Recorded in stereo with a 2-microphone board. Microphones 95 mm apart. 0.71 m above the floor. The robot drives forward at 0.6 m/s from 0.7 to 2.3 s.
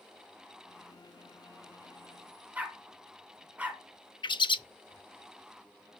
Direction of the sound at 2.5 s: 15° right (ahead or behind).